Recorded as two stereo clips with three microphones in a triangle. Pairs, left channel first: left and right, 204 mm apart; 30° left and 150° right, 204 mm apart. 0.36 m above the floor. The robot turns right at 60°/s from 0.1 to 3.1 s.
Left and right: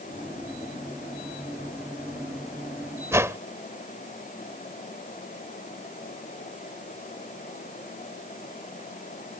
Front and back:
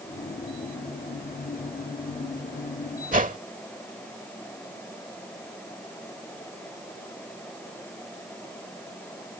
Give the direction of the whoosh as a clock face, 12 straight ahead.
5 o'clock.